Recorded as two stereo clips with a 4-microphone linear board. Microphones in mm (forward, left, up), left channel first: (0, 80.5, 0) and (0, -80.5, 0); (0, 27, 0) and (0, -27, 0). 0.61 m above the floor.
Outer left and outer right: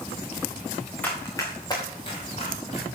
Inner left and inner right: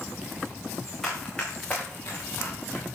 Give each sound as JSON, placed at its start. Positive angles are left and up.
{"t": 1.0, "sound": "running footsteps", "side_deg": 10, "distance_m": 4.0}